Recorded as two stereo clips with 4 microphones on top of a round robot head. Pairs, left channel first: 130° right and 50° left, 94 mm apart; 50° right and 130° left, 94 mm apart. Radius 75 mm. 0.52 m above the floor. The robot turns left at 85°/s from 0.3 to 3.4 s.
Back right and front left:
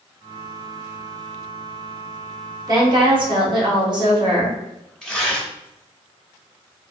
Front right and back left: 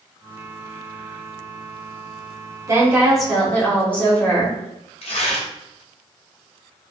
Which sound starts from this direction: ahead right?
Tearing paper, at 5.0 s.